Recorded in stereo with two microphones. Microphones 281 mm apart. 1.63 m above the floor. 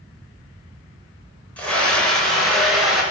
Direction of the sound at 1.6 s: 5° left (ahead or behind).